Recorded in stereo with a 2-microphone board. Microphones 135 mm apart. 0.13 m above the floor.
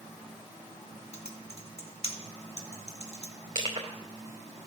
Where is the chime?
No chime in this recording.